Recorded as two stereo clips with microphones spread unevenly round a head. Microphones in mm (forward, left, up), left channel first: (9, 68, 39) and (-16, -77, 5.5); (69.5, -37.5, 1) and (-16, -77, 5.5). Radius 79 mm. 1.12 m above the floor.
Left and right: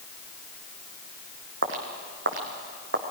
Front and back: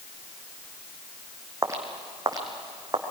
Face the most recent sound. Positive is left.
turn(degrees=-115)